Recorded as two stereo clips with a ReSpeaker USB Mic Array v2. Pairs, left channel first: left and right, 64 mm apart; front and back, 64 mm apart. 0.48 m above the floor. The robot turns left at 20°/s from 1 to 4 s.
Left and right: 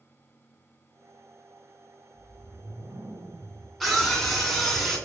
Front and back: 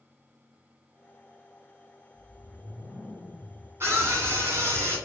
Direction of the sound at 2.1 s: 70° right.